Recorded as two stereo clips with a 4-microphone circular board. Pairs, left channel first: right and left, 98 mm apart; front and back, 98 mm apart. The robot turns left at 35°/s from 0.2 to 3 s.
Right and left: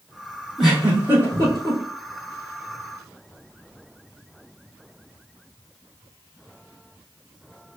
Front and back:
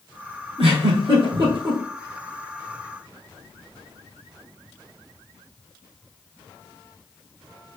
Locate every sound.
0.6 s a giggle: 175° left, 2 m; by 1.8 s 135° left, 2 m